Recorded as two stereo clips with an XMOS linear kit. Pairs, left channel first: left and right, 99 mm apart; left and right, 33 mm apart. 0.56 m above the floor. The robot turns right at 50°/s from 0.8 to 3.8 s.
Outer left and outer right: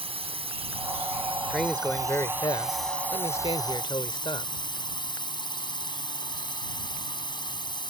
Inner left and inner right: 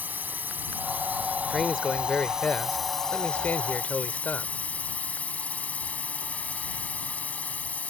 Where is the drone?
100° right; by 7.9 s 50° left.